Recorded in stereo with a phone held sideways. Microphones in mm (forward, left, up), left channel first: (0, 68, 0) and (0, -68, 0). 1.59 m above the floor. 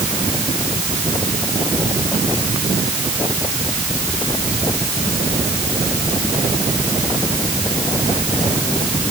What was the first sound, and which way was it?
Only background noise.